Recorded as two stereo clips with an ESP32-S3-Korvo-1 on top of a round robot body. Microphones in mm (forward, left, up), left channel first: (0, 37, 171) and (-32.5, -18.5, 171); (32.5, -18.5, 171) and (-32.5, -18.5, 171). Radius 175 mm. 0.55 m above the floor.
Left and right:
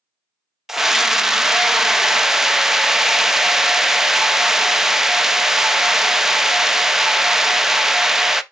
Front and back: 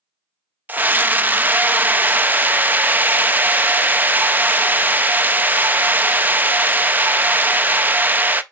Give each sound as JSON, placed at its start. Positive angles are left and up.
{"t": 0.7, "sound": "a scream", "azimuth_deg": 165, "distance_m": 0.7}